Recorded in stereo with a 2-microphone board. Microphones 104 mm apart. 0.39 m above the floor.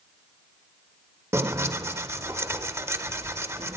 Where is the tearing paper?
25° right (ahead or behind), 0.7 m.